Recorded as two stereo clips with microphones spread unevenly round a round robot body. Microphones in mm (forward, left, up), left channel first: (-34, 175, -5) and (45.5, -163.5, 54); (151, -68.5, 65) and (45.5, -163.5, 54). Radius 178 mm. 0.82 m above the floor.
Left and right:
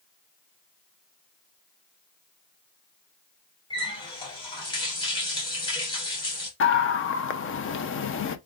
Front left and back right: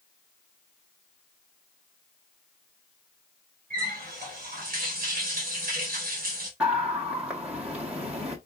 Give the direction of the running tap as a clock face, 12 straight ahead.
6 o'clock.